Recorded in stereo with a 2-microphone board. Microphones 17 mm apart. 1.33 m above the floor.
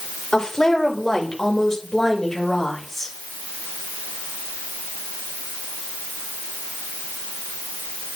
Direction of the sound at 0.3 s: 45° left (ahead or behind).